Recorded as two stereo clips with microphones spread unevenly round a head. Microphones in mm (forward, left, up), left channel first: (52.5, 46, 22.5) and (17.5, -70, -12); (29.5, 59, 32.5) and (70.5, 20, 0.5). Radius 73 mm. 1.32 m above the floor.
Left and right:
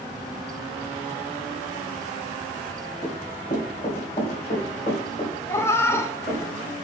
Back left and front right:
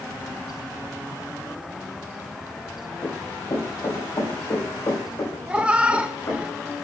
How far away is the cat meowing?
About 0.6 m.